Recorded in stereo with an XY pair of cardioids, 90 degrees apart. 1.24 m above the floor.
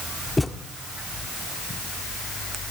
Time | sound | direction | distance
0.4 | a thud | 15° left | 1.6 m